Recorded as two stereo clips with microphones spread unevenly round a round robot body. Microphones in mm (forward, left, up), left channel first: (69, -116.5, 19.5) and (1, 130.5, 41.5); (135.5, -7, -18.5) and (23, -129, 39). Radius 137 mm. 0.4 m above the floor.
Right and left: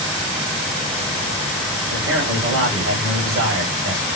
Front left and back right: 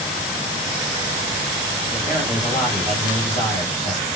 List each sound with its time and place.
1.9 s a man speaking: 95° left, 1.9 m